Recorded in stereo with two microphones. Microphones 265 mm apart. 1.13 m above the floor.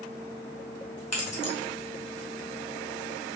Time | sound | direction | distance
1.1 | keys jangling | 65° left (ahead or behind) | 1.3 m